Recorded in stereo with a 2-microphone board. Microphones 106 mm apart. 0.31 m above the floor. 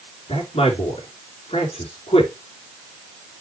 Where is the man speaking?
70° left (ahead or behind), 3 m.